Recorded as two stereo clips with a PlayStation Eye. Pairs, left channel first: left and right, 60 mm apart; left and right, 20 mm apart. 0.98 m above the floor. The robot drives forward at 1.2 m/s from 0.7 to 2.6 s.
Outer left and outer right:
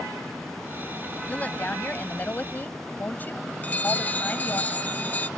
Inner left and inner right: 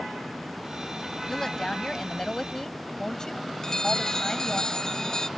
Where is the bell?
25° left (ahead or behind).